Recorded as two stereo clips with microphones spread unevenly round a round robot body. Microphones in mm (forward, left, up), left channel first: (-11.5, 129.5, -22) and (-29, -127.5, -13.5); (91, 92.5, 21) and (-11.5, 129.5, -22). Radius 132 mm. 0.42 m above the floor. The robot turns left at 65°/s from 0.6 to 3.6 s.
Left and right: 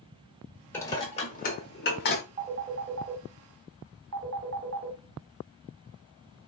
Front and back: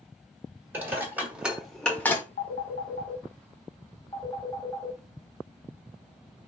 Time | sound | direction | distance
0.7 | dishes clattering | 160° left | 0.7 m
2.4 | a phone ringing | 25° right | 0.7 m